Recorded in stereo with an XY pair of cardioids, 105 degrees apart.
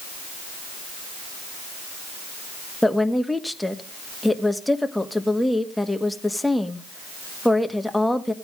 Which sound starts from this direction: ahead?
A woman speaking, at 2.8 s.